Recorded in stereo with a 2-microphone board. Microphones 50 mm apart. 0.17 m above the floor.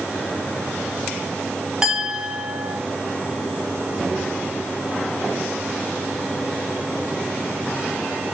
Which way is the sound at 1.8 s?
10° right (ahead or behind).